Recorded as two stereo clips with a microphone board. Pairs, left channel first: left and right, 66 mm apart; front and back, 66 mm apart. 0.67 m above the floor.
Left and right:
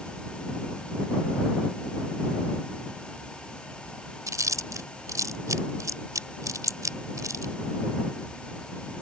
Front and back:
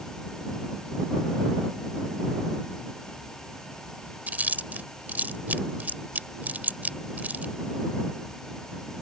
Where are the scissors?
I don't hear scissors.